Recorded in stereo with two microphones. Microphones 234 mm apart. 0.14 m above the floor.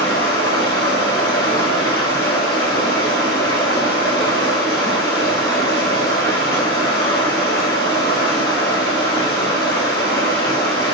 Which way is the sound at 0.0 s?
20° left (ahead or behind).